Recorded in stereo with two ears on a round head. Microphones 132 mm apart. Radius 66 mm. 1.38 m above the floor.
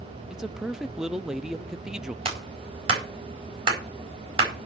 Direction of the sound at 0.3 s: 5° right (ahead or behind).